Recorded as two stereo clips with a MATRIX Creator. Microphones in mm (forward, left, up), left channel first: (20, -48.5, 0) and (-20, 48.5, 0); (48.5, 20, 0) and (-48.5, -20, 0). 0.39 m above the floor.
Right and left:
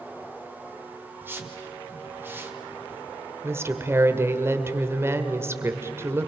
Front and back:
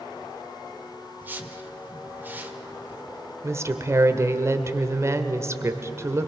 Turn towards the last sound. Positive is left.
turn(degrees=160)